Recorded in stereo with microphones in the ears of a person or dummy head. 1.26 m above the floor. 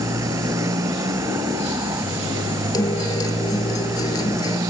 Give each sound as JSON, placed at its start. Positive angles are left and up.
{"t": 0.0, "sound": "a motorcycle", "side_deg": -20}
{"t": 2.7, "sound": "a guitar", "side_deg": 25}